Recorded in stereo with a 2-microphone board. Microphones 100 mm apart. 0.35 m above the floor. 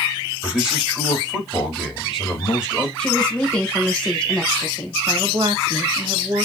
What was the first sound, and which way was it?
A man speaking, 5° right (ahead or behind).